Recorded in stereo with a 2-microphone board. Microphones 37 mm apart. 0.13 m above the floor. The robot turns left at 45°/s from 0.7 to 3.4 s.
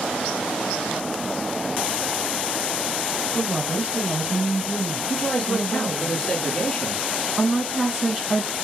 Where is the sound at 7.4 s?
10° right (ahead or behind), 1.7 m.